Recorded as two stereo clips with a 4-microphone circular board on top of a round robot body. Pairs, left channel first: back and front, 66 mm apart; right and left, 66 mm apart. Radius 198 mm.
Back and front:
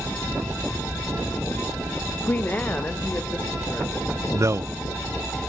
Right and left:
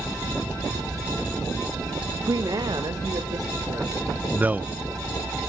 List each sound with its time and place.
2.3 s a woman speaking: 120° left, 0.7 m; by 4.2 s 105° left, 3 m
4.3 s a man speaking: 30° left, 0.5 m